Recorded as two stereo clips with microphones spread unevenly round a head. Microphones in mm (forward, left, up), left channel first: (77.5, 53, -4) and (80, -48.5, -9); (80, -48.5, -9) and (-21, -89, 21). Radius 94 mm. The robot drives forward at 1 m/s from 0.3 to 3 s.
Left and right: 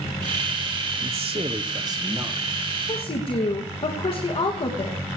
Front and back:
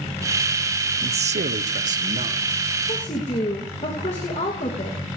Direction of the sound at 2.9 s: 60° left.